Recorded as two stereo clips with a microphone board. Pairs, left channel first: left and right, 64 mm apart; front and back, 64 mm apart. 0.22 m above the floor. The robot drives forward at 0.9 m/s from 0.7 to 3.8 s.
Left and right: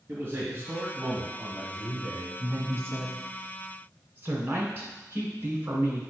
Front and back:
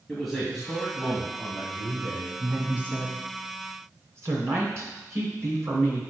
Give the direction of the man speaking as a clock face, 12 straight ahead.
3 o'clock.